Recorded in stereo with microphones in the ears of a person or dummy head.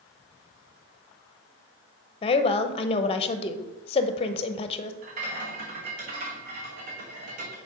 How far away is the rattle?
About 1.0 m.